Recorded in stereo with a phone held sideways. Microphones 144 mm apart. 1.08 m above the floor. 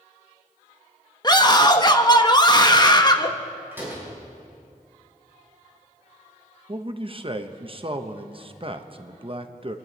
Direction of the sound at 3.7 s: 15° right (ahead or behind).